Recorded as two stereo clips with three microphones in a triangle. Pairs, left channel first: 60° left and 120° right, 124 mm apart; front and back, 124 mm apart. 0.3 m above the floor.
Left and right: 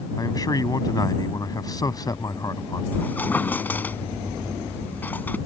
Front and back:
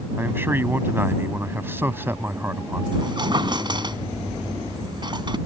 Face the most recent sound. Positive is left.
turn(degrees=135)